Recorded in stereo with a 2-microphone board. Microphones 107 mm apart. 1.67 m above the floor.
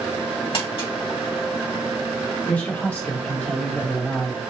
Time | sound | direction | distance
0.5 | crumpling | 55° left (ahead or behind) | 2 m
2.5 | a man speaking | 15° left (ahead or behind) | 1.3 m